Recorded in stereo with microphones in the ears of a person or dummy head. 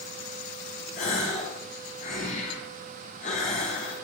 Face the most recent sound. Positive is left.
turn(degrees=50)  # may be behind; listen again after turning